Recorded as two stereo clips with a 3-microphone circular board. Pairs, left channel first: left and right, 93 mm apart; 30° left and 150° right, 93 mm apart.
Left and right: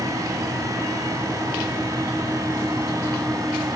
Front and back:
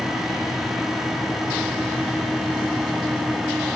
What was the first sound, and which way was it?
Only background noise.